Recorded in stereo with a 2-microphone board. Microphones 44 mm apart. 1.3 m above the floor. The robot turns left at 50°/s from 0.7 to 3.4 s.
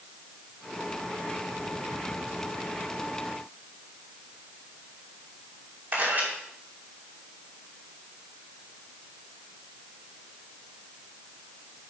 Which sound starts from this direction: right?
A camera shutter, at 5.9 s.